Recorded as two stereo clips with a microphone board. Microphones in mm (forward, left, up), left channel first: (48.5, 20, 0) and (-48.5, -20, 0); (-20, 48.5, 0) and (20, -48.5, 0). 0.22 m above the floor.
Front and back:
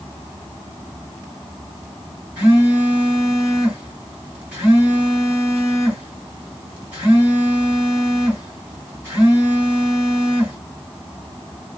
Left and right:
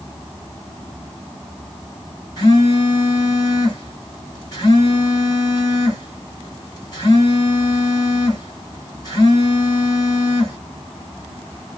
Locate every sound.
2.4 s a phone buzzing: 135° left, 1.9 m